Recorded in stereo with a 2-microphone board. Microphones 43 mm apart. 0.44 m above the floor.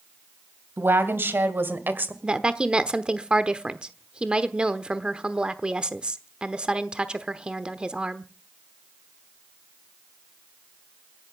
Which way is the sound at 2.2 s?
20° right (ahead or behind).